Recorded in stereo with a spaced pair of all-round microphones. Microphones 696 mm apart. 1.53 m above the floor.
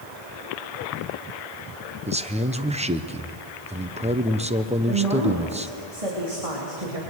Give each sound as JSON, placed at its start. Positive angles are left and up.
{"t": 2.1, "sound": "a man speaking", "side_deg": -10, "distance_m": 0.9}
{"t": 4.9, "sound": "a woman speaking", "side_deg": -55, "distance_m": 3.5}